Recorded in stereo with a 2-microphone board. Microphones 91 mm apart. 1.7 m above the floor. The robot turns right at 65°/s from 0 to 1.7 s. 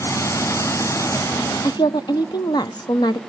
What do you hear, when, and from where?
1.6 s a woman speaking: 55° left (ahead or behind), 0.8 m; by 3.2 s 50° left (ahead or behind), 0.8 m